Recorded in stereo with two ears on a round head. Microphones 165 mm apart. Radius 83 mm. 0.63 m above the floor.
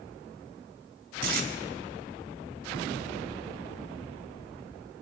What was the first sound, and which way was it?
Tape being pulled, 50° right (ahead or behind).